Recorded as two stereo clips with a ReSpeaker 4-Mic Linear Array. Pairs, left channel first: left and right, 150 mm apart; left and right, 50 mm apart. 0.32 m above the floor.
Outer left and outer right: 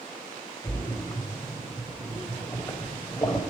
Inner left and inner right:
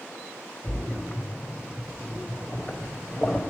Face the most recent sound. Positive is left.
turn(degrees=20)  # may be behind; listen again after turning